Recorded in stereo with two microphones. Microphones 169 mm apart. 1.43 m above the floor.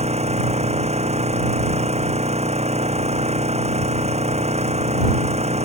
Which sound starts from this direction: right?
An engine running, at 0.0 s.